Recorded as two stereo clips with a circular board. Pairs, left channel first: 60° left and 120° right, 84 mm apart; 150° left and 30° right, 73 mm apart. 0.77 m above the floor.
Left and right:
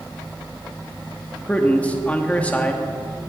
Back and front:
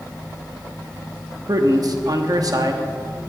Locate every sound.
1.5 s a man speaking: 10° right, 1.0 m